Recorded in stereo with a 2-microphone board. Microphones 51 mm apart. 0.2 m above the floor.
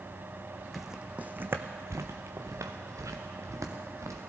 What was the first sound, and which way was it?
Footsteps, centre (ahead or behind).